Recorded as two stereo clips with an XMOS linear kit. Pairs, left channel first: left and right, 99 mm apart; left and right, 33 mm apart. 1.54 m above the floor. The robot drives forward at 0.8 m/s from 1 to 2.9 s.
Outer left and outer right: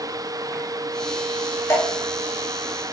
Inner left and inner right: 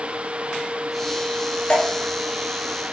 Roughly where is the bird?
I don't hear a bird.